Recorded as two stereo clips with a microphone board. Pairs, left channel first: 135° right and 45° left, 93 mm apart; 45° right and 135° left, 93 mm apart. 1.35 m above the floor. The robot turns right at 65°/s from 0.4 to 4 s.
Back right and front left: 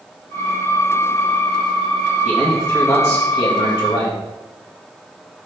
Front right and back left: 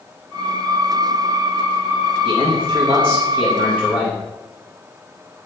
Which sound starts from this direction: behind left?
A man speaking, at 2.2 s.